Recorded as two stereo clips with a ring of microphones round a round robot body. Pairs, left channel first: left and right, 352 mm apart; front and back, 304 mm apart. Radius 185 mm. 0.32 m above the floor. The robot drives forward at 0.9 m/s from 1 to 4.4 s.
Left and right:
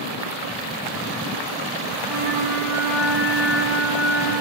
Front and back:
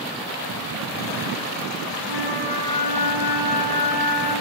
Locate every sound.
2.0 s a flute: 5° right, 10 m